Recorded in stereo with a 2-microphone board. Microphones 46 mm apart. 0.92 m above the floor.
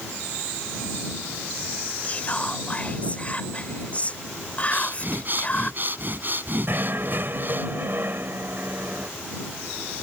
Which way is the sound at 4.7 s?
45° right (ahead or behind).